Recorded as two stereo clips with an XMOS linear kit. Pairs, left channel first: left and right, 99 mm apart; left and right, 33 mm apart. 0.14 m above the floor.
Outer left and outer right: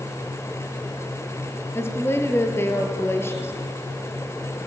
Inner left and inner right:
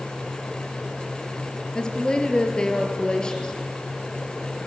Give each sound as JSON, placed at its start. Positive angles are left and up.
{"t": 1.8, "sound": "a woman speaking", "side_deg": 25, "distance_m": 2.5}